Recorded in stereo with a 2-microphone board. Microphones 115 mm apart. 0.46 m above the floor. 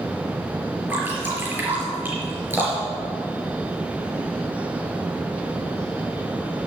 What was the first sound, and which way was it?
Dripping, 20° right (ahead or behind).